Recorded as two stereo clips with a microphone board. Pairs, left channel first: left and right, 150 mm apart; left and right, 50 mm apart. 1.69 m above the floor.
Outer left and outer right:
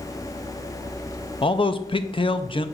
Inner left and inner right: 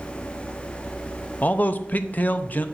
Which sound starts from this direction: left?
A man speaking, at 1.4 s.